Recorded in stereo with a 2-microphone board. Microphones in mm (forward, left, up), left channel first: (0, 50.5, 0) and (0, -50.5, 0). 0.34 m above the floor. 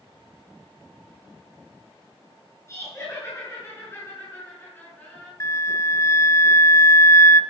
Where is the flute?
30° left (ahead or behind), 0.5 m.